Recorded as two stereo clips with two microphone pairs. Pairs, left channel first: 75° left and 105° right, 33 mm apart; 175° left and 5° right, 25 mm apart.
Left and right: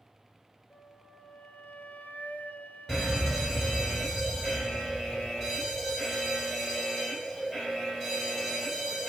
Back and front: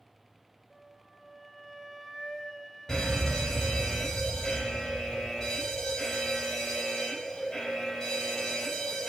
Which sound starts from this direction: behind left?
A fire alarm, at 2.9 s.